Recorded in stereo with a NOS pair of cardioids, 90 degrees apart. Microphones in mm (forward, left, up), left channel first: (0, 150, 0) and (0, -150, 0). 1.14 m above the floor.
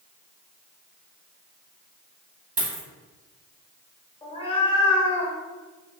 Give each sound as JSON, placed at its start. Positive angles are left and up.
{"t": 2.6, "sound": "a dropped coin", "azimuth_deg": -30, "distance_m": 1.5}
{"t": 4.2, "sound": "a cat meowing", "azimuth_deg": 20, "distance_m": 0.9}